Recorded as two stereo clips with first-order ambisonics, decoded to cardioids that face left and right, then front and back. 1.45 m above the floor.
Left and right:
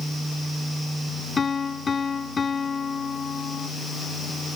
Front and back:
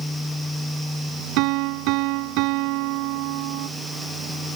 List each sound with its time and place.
1.4 s a piano: 160° left